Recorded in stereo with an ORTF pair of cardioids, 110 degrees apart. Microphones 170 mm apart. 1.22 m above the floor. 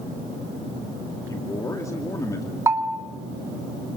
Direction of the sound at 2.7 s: 15° right.